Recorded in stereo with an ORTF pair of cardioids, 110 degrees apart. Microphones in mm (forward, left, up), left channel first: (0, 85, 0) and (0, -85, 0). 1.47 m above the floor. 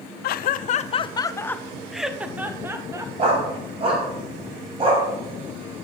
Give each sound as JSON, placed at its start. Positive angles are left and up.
{"t": 0.2, "sound": "laughter", "azimuth_deg": 70, "distance_m": 0.7}
{"t": 3.2, "sound": "a dog barking", "azimuth_deg": -35, "distance_m": 3.0}